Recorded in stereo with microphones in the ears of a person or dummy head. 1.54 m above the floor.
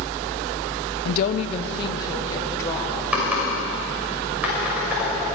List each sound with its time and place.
1.1 s a woman speaking: 55° left (ahead or behind), 0.7 m; by 3.0 s 15° left (ahead or behind), 2.5 m
3.1 s typing on a keyboard: centre (ahead or behind), 5.5 m